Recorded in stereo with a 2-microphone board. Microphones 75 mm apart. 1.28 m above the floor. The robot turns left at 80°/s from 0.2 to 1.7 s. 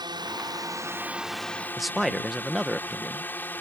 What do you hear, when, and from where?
0.0 s a drone: 85° right; by 3.6 s 155° left
1.8 s a man speaking: centre (ahead or behind)